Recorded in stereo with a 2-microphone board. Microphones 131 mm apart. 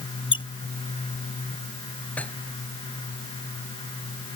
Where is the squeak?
40° left (ahead or behind).